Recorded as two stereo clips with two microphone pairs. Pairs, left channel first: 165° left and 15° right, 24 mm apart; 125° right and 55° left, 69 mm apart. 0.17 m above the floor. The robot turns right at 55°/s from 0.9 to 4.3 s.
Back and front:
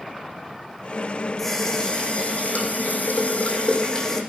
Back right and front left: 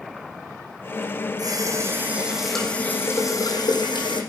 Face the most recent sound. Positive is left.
turn(degrees=-115)